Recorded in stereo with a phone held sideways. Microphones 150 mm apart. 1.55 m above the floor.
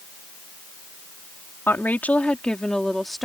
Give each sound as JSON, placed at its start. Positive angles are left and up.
{"t": 1.7, "sound": "a woman speaking", "side_deg": 15}